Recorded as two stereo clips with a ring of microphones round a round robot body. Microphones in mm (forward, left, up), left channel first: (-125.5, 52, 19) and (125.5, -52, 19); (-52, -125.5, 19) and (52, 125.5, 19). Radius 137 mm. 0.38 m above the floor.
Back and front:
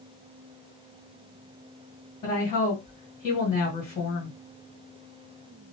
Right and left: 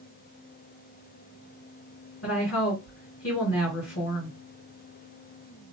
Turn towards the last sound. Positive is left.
turn(degrees=-135)